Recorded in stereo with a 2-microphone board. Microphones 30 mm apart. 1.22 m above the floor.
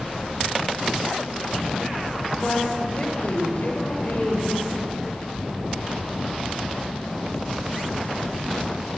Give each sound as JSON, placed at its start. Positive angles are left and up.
{"t": 2.4, "sound": "a woman speaking", "side_deg": 40, "distance_m": 6.0}